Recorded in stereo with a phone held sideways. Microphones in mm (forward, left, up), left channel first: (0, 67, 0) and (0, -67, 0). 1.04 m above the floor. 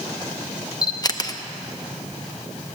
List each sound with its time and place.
0.8 s a camera shutter: 30° left (ahead or behind), 0.6 m